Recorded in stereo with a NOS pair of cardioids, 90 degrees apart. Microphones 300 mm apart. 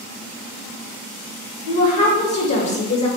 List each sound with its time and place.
1.7 s a woman speaking: 50° left, 1.1 m